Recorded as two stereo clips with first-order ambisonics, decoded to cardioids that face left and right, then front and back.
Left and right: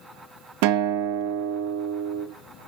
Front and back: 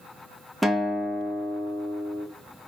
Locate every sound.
0.6 s a guitar: 95° right, 1.6 m